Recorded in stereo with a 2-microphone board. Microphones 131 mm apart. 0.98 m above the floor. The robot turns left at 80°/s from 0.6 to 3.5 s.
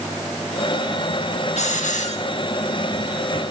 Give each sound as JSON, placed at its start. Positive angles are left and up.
{"t": 1.6, "sound": "a hiss", "azimuth_deg": 115, "distance_m": 0.8}